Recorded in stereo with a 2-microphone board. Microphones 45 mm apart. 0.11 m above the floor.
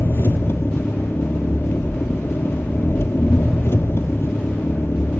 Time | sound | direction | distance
0.0 | an engine running | 65° left (ahead or behind) | 1.4 m